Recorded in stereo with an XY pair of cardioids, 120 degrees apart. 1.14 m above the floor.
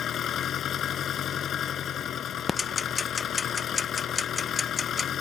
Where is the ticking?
30° left.